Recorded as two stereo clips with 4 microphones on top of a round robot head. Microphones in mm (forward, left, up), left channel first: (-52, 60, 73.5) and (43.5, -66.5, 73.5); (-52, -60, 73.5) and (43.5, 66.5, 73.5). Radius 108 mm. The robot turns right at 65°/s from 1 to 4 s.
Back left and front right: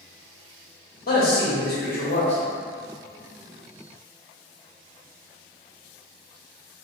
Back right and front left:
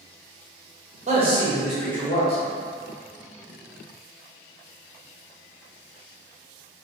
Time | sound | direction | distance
1.1 | a man speaking | 95° left | 1.3 m